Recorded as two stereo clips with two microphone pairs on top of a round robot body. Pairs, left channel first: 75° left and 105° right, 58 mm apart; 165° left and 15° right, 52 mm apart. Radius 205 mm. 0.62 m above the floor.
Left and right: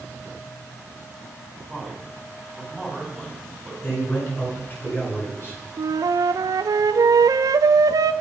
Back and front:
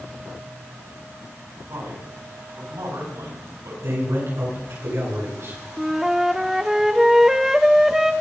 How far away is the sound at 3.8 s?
About 9.5 m.